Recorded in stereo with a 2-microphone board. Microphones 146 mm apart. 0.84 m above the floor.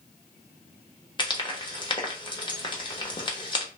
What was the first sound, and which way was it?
Frying, 30° left (ahead or behind).